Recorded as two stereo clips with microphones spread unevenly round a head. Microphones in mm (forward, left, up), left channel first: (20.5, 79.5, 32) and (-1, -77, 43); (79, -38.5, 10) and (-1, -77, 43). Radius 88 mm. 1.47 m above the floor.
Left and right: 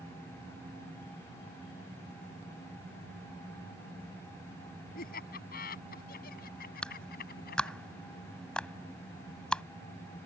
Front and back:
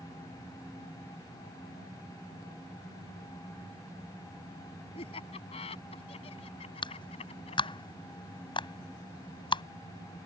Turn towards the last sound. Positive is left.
turn(degrees=0)